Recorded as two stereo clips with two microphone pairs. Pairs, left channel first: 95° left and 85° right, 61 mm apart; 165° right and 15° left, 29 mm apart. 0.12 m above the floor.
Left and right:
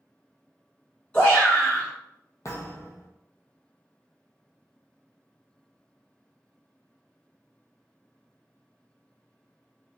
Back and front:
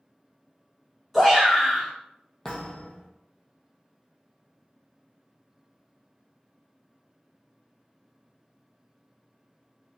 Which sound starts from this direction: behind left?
A thud, at 2.5 s.